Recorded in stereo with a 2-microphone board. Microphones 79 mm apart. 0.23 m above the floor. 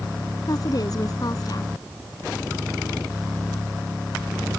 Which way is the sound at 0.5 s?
55° left (ahead or behind).